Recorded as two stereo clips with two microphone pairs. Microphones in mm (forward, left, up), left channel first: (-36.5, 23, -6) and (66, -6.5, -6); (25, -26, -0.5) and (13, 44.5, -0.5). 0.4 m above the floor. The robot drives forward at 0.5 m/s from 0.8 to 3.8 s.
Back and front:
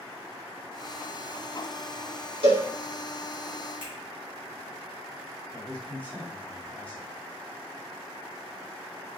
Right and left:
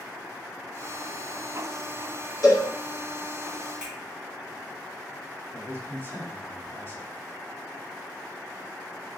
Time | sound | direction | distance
2.4 | a cowbell | 45° right | 2 m
3.8 | a finger snap | 175° left | 2 m
5.5 | a man speaking | 125° right | 1.4 m